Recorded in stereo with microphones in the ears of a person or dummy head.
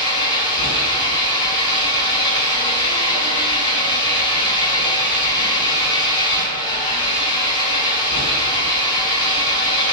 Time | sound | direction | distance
0.0 | an engine running | 25° left (ahead or behind) | 7 m